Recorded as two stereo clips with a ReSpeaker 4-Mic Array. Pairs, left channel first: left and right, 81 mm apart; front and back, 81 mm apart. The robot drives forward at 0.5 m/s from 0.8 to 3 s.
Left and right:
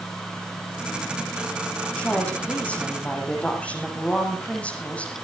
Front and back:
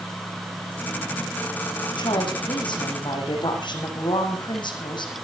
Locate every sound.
2.0 s a woman speaking: 15° left, 8.5 m